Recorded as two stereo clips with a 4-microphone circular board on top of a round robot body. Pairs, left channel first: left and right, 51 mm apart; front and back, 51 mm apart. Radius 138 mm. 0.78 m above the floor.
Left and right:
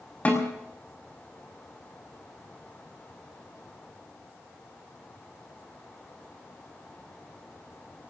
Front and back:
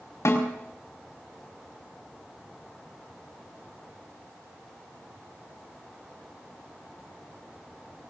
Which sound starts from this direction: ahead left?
A snare drum, at 0.2 s.